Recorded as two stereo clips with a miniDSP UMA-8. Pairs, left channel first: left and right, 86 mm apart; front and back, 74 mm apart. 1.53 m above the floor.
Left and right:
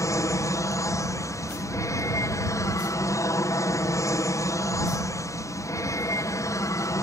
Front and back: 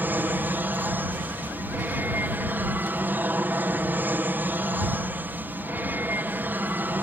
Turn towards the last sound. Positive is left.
turn(degrees=125)